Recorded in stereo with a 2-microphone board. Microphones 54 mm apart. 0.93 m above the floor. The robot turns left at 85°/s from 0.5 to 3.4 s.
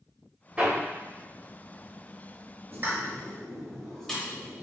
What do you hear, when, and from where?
0.6 s hammering: 25° right (ahead or behind), 1.2 m; by 0.8 s 10° right (ahead or behind), 1.2 m
2.7 s a pop: 50° right (ahead or behind), 1.3 m; by 4.6 s 10° left (ahead or behind), 1.3 m